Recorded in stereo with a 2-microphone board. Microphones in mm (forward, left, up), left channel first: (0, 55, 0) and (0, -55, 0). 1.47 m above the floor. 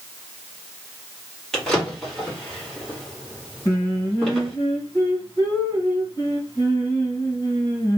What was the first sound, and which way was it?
A drawer, 5° left (ahead or behind).